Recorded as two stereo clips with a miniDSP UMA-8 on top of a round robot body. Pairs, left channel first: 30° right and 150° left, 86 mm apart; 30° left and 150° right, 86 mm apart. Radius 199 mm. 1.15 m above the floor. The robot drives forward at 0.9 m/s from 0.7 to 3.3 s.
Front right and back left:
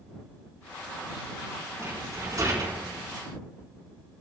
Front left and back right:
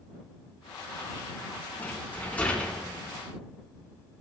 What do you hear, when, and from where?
1.8 s a rattle: 95° left, 4.5 m; by 2.9 s 110° left, 4.5 m